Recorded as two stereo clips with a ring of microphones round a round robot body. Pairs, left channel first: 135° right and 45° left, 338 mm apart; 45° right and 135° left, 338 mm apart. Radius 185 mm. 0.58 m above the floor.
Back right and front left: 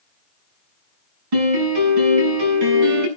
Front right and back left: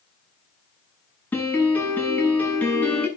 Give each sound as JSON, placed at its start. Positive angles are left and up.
{"t": 1.3, "sound": "a piano", "azimuth_deg": 40, "distance_m": 8.0}